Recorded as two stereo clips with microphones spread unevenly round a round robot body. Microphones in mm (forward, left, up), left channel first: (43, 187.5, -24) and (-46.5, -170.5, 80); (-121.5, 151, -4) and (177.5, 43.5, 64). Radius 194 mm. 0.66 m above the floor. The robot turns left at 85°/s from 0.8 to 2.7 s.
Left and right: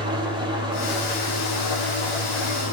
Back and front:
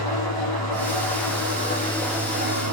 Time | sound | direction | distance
0.0 | an engine running | straight behind | 6.5 m